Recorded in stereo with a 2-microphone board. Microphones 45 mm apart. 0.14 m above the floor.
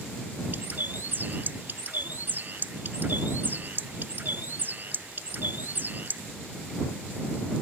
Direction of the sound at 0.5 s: 45° right (ahead or behind).